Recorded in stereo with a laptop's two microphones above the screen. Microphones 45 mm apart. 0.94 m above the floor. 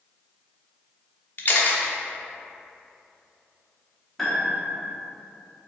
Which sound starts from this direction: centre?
A piano, at 4.2 s.